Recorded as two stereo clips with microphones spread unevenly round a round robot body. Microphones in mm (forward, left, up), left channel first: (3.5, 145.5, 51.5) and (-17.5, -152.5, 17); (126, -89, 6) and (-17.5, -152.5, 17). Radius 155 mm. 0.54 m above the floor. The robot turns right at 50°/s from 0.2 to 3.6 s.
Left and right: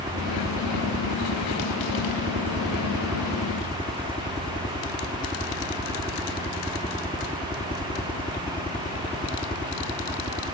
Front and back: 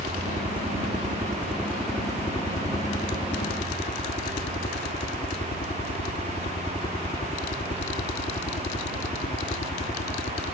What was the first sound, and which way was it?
A helicopter, 155° right.